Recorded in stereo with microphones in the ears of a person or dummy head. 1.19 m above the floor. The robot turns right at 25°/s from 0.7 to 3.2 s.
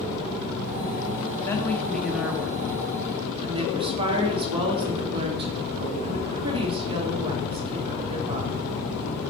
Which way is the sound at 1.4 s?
170° left.